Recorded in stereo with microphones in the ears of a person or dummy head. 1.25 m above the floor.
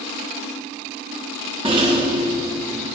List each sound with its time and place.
1.6 s a rattle: 30° right (ahead or behind), 1.0 m